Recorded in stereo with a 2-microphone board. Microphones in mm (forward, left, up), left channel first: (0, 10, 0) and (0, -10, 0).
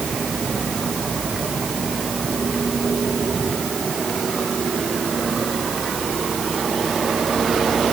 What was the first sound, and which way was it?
Only background noise.